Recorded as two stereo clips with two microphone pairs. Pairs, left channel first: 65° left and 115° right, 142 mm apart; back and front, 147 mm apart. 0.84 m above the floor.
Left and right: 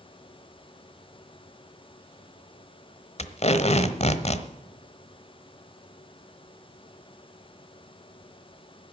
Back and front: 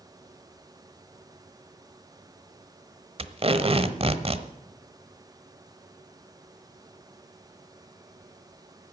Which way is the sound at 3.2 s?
35° left.